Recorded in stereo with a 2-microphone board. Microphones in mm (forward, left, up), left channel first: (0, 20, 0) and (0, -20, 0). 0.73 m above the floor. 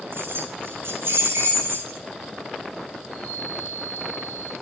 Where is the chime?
20° left (ahead or behind), 10 m.